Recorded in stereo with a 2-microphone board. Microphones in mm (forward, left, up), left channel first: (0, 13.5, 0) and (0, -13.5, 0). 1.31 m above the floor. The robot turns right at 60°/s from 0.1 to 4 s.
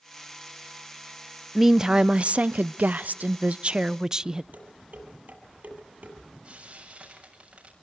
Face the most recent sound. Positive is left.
turn(degrees=-45)  # may be behind; listen again after turning